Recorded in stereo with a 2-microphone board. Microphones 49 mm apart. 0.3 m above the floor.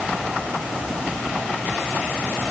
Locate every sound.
Only background noise.